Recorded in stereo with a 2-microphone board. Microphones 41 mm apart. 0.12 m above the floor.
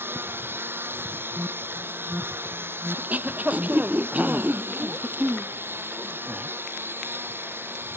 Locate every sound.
0.0 s a lawn mower: 65° right (ahead or behind)
1.4 s an alarm: 50° right (ahead or behind)
3.0 s throat clearing: 40° right (ahead or behind)